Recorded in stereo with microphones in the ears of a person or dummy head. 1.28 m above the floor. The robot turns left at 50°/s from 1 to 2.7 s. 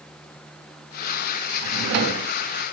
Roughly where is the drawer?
Right.